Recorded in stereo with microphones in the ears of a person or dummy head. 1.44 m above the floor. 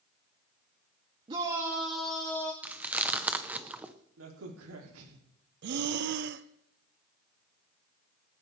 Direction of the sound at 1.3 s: 25° right (ahead or behind).